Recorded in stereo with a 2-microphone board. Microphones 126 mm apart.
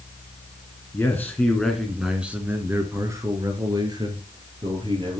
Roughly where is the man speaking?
Centre.